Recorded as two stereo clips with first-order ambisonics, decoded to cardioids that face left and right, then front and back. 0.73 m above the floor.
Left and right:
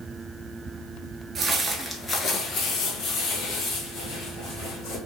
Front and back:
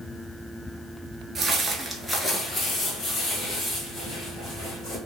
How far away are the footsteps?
About 0.7 m.